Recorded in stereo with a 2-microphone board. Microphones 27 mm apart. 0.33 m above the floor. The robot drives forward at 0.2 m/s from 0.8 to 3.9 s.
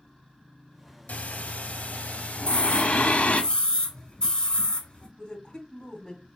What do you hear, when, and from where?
1.1 s breathing: 70° left (ahead or behind), 0.7 m; by 3.4 s 50° left (ahead or behind), 0.8 m
2.4 s a scream: 30° left (ahead or behind), 1.1 m
5.2 s a woman speaking: 25° left (ahead or behind), 1.5 m